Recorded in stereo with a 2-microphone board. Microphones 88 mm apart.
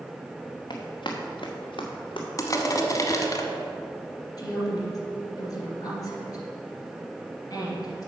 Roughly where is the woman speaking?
Left.